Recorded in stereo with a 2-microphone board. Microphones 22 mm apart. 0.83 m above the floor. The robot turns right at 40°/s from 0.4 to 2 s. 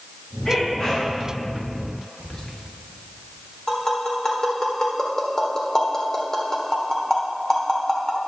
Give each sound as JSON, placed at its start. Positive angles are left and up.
{"t": 0.5, "sound": "a sneeze", "side_deg": 20, "distance_m": 3.0}
{"t": 2.2, "sound": "whispering", "side_deg": 30, "distance_m": 1.6}
{"t": 3.7, "sound": "tapping", "side_deg": 20, "distance_m": 1.4}